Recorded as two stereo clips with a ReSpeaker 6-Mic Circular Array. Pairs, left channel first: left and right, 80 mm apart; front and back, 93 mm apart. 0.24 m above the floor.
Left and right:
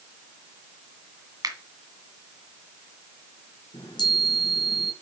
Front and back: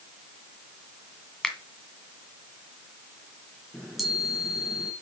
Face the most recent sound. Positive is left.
turn(degrees=90)